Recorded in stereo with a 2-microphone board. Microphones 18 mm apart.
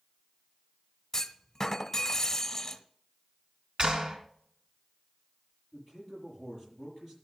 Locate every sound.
1.1 s a clunk: 25° left (ahead or behind), 0.9 m
3.8 s a clap: 55° right (ahead or behind), 2.5 m
5.7 s a man speaking: 15° right (ahead or behind), 8 m